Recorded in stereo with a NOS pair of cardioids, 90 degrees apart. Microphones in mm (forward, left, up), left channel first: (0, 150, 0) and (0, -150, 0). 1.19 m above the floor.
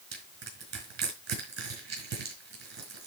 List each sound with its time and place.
0.1 s crushing: 65° right, 5 m